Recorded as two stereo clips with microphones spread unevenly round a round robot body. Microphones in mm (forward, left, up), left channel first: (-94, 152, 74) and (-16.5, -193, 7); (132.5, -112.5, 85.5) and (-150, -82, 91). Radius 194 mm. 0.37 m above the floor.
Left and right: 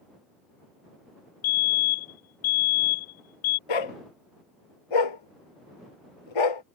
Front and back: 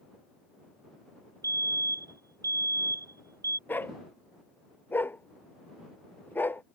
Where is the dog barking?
80° left.